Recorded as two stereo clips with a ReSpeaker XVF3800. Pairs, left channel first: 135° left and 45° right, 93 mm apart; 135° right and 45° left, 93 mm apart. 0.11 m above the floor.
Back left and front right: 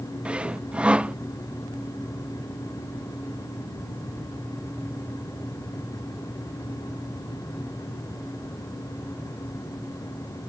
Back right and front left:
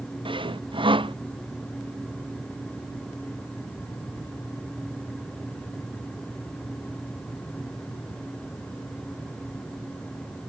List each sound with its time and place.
0.2 s sawing: 30° left